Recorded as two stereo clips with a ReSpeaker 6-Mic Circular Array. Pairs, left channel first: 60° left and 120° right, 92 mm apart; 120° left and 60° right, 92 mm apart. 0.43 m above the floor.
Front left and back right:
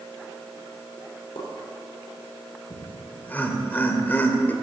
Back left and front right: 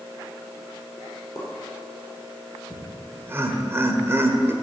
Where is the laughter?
5° right, 1.6 m.